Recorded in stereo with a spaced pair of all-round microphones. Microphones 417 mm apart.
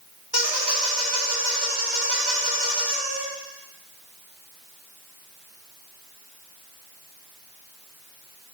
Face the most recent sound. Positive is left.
turn(degrees=-65)  # may be behind; listen again after turning